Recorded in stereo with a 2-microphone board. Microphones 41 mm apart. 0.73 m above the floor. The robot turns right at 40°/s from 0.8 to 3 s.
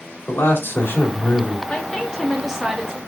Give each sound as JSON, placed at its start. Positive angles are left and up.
{"t": 0.3, "sound": "a man speaking", "azimuth_deg": 80, "distance_m": 1.7}
{"t": 1.7, "sound": "a woman speaking", "azimuth_deg": 145, "distance_m": 1.2}